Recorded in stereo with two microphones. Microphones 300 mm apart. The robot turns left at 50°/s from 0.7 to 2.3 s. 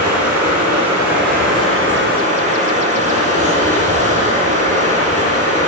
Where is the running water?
75° right, 3 m; by 5.7 s 155° right, 3 m.